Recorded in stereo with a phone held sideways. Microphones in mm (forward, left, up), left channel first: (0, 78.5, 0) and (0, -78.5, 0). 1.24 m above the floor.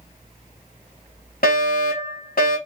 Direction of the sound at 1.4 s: 65° left (ahead or behind).